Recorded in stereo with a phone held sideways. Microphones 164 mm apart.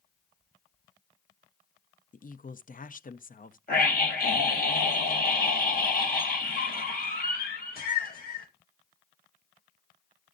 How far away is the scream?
About 5 m.